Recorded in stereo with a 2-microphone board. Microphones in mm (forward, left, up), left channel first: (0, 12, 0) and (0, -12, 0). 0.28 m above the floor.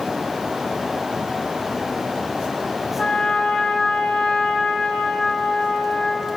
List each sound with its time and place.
3.0 s a trumpet: 45° left (ahead or behind), 0.5 m